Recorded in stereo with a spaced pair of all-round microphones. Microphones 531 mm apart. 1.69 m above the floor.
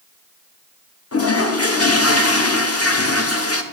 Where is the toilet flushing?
30° left (ahead or behind), 0.6 m.